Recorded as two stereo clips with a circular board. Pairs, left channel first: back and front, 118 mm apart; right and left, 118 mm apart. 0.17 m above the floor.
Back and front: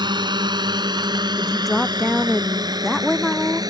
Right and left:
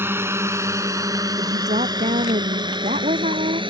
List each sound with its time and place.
0.0 s a drone: 30° left; by 3.7 s 55° left
1.4 s a woman speaking: 90° left